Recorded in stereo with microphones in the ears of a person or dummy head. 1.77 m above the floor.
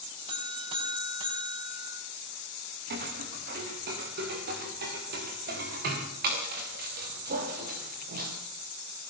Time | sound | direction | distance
0.3 | a buzzer | 35° right (ahead or behind) | 4.5 m
2.9 | footsteps | 60° right (ahead or behind) | 5.5 m